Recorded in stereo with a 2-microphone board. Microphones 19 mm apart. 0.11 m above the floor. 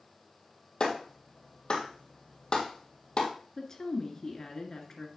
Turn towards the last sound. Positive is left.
turn(degrees=30)  # may be behind; listen again after turning